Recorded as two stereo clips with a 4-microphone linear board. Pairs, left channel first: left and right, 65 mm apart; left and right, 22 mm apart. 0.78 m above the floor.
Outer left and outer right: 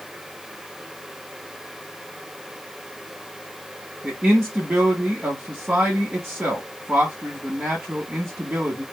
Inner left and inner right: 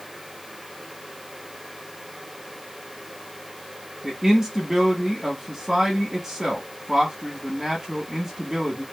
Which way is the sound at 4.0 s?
15° right (ahead or behind).